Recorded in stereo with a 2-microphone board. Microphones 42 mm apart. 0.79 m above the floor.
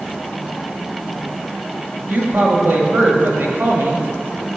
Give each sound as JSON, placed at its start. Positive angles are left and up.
{"t": 2.1, "sound": "a woman speaking", "side_deg": -55, "distance_m": 1.4}